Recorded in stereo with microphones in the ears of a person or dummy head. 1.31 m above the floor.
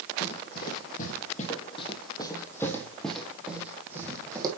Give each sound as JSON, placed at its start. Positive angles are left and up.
{"t": 0.2, "sound": "running footsteps", "side_deg": 55, "distance_m": 3.5}